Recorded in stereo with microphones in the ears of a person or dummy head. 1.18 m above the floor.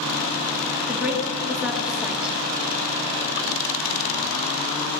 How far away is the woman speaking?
About 1.6 m.